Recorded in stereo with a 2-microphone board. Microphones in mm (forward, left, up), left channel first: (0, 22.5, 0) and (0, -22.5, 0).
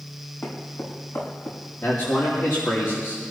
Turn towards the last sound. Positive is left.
turn(degrees=60)  # may be behind; listen again after turning